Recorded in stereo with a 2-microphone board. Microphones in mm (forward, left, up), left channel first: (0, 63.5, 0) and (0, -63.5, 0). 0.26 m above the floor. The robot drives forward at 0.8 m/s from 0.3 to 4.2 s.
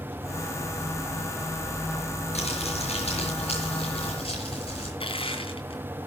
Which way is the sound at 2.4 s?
60° left (ahead or behind).